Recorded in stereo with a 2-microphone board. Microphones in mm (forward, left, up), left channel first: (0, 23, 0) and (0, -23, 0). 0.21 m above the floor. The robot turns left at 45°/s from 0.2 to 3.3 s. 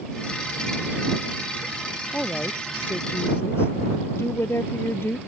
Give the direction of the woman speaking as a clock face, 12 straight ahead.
6 o'clock.